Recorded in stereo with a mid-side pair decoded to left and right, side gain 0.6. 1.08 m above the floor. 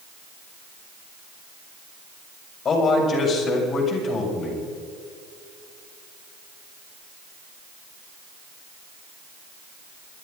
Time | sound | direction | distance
2.6 | a man speaking | 40° left | 6 m